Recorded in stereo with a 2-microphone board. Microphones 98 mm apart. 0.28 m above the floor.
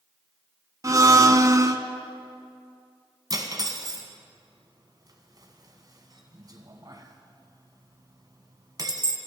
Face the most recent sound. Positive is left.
turn(degrees=-40)  # may be behind; listen again after turning